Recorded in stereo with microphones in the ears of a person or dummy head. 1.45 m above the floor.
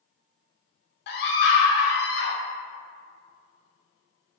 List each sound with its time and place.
1.1 s a scream: 55° left (ahead or behind), 0.5 m